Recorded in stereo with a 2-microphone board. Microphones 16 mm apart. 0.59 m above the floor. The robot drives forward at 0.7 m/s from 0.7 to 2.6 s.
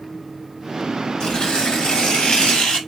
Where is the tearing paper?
65° left (ahead or behind), 4 m; by 2.8 s 70° left (ahead or behind), 3.5 m.